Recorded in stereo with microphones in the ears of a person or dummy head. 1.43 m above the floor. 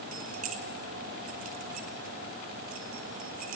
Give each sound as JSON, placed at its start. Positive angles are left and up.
{"t": 0.1, "sound": "keys jangling", "side_deg": -40, "distance_m": 0.9}